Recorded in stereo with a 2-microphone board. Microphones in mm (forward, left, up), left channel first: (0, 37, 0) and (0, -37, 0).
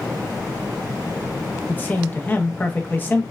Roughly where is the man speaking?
Left.